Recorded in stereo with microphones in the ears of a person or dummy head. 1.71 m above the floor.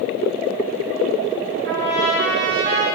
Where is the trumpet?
60° right (ahead or behind), 1.9 m.